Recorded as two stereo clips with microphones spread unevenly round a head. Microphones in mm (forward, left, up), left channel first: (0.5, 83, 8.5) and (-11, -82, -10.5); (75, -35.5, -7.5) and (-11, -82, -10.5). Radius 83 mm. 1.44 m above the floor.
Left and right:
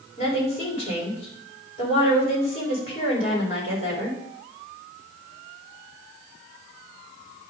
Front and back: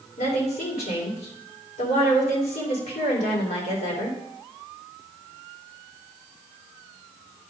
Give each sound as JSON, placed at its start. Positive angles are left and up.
{"t": 0.2, "sound": "a woman speaking", "azimuth_deg": 30, "distance_m": 4.0}